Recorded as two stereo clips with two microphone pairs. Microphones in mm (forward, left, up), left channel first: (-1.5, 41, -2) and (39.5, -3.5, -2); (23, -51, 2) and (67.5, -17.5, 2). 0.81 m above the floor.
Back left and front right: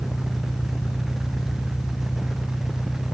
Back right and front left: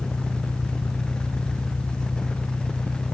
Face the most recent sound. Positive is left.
turn(degrees=170)